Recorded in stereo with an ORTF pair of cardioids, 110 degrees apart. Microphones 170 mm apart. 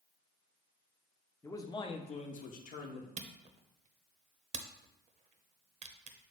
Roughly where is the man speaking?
Ahead.